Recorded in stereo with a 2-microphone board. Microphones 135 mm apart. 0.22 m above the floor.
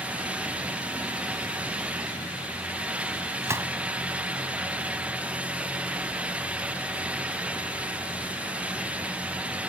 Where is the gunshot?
20° right (ahead or behind).